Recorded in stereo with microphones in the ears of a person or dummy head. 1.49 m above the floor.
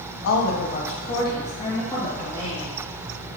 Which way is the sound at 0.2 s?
75° left (ahead or behind).